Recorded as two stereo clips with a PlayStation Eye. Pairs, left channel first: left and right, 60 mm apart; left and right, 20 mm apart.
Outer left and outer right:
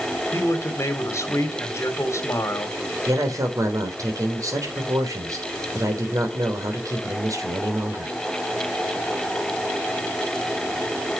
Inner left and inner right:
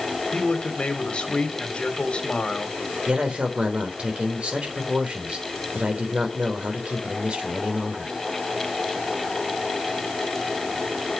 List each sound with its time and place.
0.3 s a man speaking: 55° left (ahead or behind), 2.5 m
3.1 s a man speaking: 70° right (ahead or behind), 3.5 m